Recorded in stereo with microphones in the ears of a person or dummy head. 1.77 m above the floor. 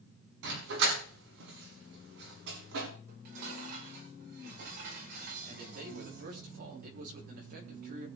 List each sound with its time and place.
0.4 s a dog barking: 75° right (ahead or behind), 6.5 m
3.1 s dishes clattering: 65° right (ahead or behind), 5 m
5.5 s a man speaking: 60° right (ahead or behind), 5 m